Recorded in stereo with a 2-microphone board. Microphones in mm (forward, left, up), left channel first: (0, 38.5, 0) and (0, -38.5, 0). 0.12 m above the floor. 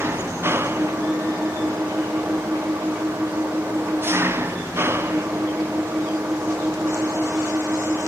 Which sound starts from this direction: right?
An engine running, at 0.0 s.